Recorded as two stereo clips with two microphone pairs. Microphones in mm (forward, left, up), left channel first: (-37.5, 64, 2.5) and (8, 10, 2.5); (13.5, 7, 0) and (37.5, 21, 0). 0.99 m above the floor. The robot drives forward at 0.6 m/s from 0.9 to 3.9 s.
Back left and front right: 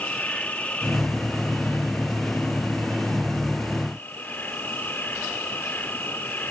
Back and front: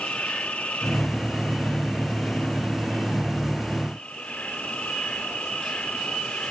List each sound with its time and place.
0.0 s an insect: 165° right; by 6.5 s 170° right